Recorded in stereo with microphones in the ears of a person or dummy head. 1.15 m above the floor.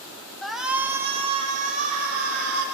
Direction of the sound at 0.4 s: 5° left (ahead or behind).